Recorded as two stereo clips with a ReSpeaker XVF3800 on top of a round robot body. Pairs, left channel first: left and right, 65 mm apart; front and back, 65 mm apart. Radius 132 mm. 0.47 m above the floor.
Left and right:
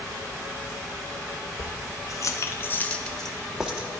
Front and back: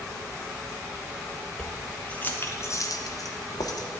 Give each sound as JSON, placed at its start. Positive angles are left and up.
{"t": 1.6, "sound": "keys jangling", "azimuth_deg": 85, "distance_m": 1.0}